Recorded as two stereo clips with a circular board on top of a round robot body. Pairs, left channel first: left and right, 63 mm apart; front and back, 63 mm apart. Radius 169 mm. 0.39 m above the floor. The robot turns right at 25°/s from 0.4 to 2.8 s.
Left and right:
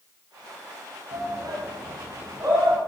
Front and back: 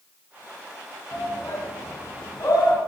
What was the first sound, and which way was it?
A shout, 75° right.